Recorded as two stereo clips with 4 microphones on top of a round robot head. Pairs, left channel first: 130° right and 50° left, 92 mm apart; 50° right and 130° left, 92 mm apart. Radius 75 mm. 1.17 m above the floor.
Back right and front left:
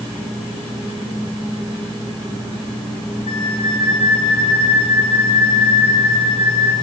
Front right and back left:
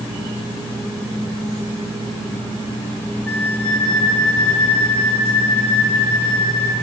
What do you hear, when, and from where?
3.3 s a flute: 125° right, 2.0 m